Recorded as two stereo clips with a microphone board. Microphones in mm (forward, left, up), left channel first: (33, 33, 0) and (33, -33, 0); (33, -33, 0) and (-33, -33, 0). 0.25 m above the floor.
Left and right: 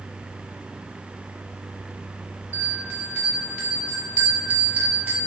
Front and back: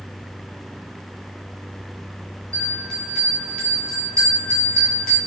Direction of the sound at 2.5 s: 60° right.